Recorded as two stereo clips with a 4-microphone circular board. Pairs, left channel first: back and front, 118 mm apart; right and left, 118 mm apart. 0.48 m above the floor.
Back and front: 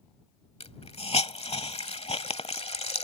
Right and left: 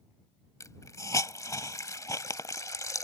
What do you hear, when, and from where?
0.6 s a hiss: 150° right